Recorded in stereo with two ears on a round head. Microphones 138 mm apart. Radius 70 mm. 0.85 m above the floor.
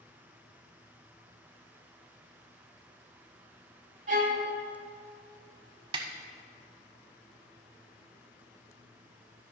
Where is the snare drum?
35° right (ahead or behind), 0.8 m.